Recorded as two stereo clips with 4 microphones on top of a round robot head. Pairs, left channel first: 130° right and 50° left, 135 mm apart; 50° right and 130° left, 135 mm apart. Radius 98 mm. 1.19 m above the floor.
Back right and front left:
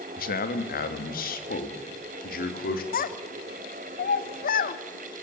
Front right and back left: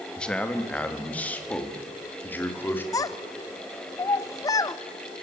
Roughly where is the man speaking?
Behind right.